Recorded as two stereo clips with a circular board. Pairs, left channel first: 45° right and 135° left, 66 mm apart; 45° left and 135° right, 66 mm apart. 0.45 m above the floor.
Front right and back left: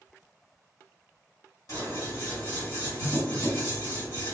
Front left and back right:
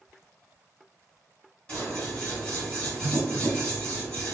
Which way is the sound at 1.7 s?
25° right.